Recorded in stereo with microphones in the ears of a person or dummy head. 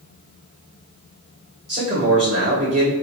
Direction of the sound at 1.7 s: 40° right (ahead or behind).